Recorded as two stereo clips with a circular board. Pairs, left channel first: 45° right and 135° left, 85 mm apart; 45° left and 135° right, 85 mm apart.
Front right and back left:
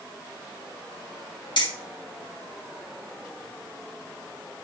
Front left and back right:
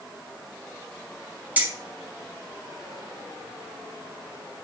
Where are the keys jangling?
65° right, 2.5 m.